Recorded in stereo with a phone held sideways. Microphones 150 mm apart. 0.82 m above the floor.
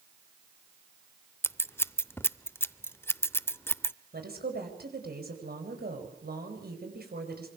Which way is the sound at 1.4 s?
15° left (ahead or behind).